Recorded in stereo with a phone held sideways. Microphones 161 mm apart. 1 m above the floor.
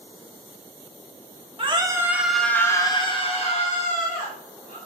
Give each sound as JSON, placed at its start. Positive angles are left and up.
{"t": 1.6, "sound": "a scream", "side_deg": -35, "distance_m": 1.2}